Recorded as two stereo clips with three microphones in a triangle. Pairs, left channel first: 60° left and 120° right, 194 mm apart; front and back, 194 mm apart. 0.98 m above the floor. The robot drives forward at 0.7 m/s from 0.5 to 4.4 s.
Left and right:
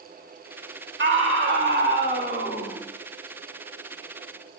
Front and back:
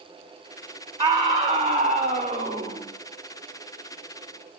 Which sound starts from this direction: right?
A scream, at 1.0 s.